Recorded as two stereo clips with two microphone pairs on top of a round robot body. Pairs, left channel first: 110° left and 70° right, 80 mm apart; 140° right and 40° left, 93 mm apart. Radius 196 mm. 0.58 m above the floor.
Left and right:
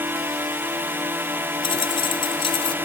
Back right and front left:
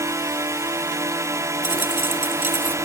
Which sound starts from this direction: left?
A dropped coin, at 1.6 s.